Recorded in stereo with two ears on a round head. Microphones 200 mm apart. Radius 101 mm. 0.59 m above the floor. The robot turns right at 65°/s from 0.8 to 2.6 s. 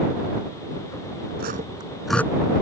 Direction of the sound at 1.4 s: 45° right (ahead or behind).